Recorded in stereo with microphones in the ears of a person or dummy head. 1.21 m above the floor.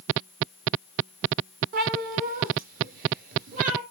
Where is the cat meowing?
45° right (ahead or behind), 3.5 m; by 3.8 s 50° right (ahead or behind), 4.5 m.